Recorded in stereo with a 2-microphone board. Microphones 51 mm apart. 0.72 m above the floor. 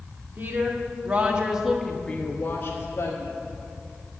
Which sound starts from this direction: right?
A woman speaking, at 0.4 s.